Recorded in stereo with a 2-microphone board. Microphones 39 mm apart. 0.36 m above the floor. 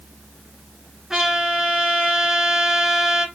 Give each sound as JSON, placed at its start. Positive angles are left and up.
{"t": 1.1, "sound": "a trumpet", "side_deg": -10, "distance_m": 1.0}